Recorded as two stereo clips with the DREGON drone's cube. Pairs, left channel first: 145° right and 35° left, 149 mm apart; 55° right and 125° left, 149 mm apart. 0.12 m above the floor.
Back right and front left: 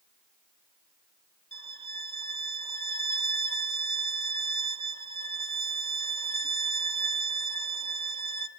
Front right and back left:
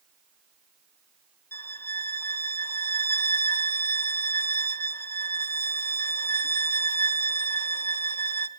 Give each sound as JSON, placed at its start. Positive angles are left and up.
{"t": 1.5, "sound": "a violin", "azimuth_deg": 10, "distance_m": 0.8}